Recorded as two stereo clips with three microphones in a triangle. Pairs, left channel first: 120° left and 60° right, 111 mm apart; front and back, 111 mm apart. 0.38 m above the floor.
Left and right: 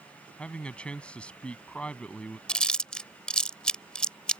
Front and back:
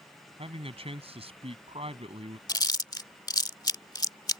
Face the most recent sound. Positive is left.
turn(degrees=40)